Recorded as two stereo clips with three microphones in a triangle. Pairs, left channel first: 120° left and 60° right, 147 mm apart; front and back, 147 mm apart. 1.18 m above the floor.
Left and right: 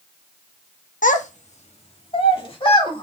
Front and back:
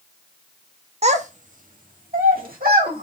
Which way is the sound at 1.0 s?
140° left.